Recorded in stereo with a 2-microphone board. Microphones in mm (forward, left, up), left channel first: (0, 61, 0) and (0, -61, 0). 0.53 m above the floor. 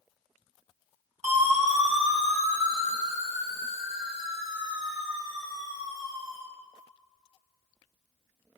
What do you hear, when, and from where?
1.2 s a siren: 75° right (ahead or behind), 3 m; by 6.4 s 30° right (ahead or behind), 2.5 m